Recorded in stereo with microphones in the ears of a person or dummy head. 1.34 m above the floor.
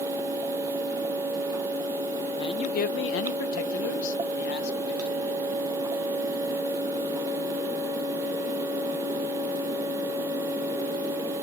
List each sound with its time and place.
2.4 s a man speaking: 25° left (ahead or behind), 0.7 m; by 5.5 s 50° left (ahead or behind), 1.8 m